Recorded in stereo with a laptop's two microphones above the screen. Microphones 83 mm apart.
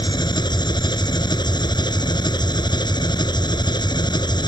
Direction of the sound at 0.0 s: 65° left (ahead or behind).